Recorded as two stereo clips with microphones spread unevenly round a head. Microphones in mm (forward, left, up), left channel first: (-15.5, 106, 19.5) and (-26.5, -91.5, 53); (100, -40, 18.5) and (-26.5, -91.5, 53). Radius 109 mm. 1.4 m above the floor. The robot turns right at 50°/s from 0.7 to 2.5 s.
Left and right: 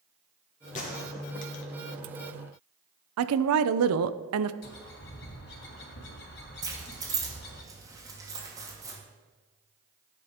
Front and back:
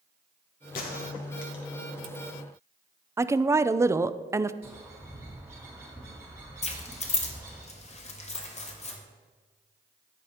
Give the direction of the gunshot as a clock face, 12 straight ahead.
11 o'clock.